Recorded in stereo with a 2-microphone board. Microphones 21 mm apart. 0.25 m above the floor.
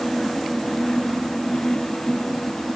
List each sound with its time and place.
Only background noise.